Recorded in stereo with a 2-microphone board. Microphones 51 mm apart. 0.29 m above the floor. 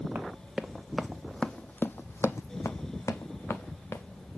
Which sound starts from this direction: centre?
Running footsteps, at 0.1 s.